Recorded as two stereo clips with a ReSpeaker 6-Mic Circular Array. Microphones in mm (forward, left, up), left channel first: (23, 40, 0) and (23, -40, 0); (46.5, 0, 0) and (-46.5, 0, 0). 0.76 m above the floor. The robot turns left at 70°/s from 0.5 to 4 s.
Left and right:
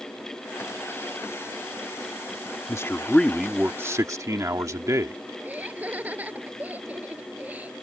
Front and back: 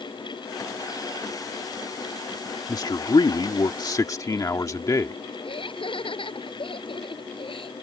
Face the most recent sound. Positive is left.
turn(degrees=-20)